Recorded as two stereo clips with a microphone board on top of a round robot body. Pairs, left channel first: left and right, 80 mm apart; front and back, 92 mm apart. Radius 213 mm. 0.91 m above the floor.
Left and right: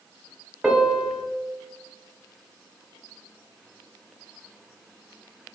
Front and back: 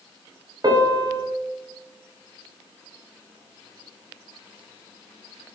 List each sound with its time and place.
0.6 s a piano: 165° right, 0.9 m